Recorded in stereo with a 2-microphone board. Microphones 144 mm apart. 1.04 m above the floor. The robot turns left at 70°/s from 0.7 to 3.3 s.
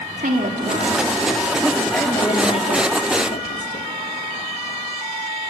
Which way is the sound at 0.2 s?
105° right.